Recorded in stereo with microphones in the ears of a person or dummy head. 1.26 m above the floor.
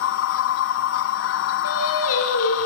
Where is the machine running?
65° left (ahead or behind), 1.1 m.